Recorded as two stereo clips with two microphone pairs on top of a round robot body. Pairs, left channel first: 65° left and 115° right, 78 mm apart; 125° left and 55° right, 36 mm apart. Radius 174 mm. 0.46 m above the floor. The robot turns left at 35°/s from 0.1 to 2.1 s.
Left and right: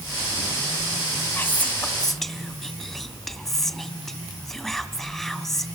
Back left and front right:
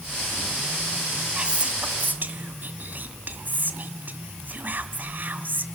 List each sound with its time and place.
1.4 s whispering: 5° left, 1.9 m; by 5.7 s 20° right, 1.9 m